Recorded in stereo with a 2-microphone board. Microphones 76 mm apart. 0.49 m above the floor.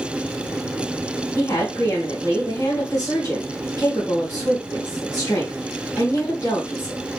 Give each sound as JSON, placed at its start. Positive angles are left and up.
{"t": 1.4, "sound": "a woman speaking", "side_deg": 35, "distance_m": 3.0}